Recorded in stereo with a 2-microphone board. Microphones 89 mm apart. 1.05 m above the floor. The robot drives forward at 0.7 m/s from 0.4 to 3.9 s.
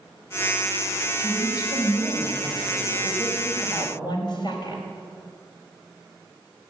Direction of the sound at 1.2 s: 45° left (ahead or behind).